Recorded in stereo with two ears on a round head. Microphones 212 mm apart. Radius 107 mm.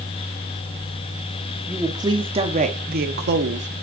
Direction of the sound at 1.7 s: 10° right (ahead or behind).